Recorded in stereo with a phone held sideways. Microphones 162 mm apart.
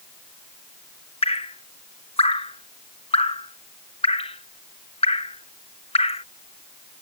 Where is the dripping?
40° left (ahead or behind).